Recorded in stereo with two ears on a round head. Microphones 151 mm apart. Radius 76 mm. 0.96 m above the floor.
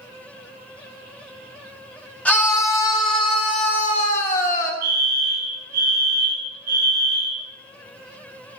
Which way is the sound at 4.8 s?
60° right (ahead or behind).